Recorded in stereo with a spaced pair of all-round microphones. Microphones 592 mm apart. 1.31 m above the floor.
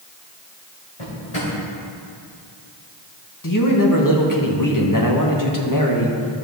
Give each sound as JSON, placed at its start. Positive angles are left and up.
{"t": 1.0, "sound": "a drawer", "side_deg": 55, "distance_m": 3.0}
{"t": 3.4, "sound": "a man speaking", "side_deg": 35, "distance_m": 1.1}